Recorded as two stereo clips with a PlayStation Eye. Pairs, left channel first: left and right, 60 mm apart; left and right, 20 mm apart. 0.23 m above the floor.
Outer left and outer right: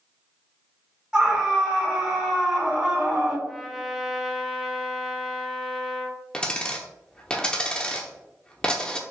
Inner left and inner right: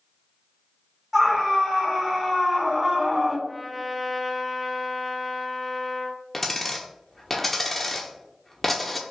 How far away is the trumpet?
About 1.1 m.